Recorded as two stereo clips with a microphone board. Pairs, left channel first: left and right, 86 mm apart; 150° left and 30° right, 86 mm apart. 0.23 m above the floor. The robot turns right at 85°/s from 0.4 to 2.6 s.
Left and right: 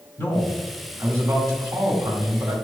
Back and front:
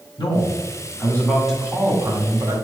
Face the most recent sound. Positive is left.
turn(degrees=-25)